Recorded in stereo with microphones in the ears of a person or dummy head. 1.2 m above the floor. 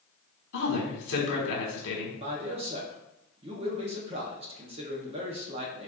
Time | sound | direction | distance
0.5 | a woman speaking | 70° left (ahead or behind) | 1.3 m
2.2 | a man speaking | 30° right (ahead or behind) | 0.6 m